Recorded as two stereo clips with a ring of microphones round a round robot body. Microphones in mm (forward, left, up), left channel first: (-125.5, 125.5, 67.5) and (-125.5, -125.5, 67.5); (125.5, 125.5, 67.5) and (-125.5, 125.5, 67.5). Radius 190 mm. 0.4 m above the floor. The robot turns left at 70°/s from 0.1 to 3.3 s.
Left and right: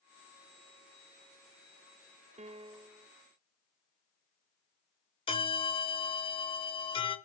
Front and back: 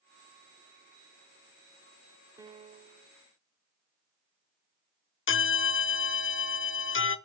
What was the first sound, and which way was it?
A piano, 120° right.